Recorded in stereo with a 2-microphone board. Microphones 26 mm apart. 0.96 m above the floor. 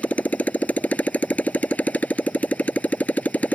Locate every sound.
0.0 s a motorcycle: 70° left (ahead or behind)